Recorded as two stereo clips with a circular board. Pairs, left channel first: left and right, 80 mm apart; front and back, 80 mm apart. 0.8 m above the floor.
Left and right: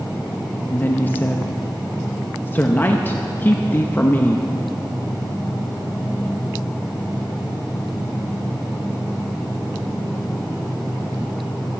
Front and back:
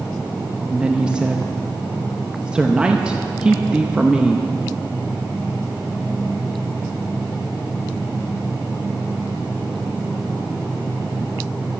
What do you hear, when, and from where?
0.7 s a woman speaking: 115° left, 0.7 m